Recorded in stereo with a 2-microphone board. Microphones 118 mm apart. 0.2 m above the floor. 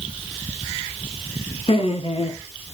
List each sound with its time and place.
1.7 s laughter: 55° left (ahead or behind), 3 m